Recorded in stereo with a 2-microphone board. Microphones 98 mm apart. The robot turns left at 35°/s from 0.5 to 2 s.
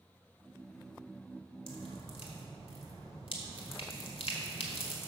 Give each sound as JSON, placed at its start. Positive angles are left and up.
{"t": 1.7, "sound": "dripping", "side_deg": 65, "distance_m": 1.6}